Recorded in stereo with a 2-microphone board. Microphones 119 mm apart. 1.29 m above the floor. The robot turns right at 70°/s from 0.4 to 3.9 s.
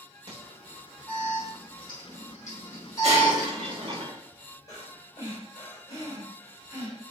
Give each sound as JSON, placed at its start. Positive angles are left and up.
{"t": 0.3, "sound": "an alarm", "side_deg": -60, "distance_m": 3.5}
{"t": 3.0, "sound": "breaking glass", "azimuth_deg": -120, "distance_m": 1.5}
{"t": 4.7, "sound": "breathing", "side_deg": 30, "distance_m": 3.5}